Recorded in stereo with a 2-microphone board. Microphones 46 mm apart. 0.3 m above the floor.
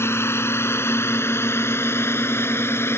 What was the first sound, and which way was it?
A drone, 60° left (ahead or behind).